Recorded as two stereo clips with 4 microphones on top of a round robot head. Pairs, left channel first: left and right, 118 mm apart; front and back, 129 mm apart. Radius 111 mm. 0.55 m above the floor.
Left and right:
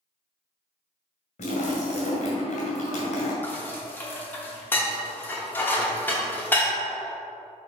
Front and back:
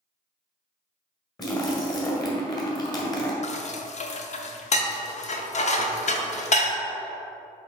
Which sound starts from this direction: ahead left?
A splash, at 1.4 s.